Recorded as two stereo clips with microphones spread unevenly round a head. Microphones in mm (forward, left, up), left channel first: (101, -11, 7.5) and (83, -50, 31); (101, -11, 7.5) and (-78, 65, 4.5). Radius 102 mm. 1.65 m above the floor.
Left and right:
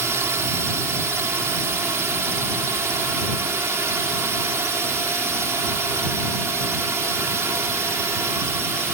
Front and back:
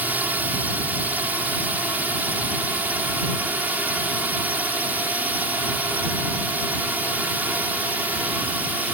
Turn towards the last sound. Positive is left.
turn(degrees=-120)